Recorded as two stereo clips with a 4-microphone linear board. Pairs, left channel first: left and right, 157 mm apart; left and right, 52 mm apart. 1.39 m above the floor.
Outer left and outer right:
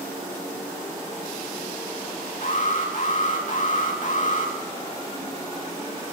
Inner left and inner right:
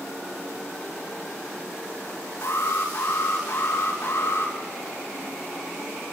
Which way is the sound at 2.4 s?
55° left (ahead or behind).